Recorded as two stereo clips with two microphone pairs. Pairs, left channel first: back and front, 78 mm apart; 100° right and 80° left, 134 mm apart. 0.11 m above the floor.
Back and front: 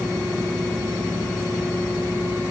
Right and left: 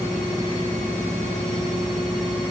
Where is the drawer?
No drawer in this recording.